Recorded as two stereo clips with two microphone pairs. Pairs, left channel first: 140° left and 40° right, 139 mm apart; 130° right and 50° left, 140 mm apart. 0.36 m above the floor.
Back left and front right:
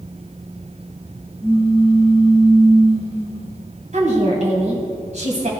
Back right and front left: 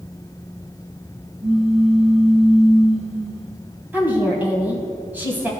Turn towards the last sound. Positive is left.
turn(degrees=-25)